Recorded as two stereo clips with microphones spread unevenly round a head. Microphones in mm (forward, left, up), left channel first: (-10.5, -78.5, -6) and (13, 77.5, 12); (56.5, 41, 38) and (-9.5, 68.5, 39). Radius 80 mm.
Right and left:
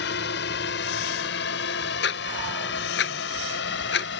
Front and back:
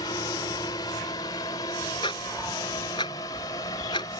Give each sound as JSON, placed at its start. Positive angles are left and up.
{"t": 0.0, "sound": "a drone", "azimuth_deg": -80}
{"t": 2.0, "sound": "ticking", "azimuth_deg": -75}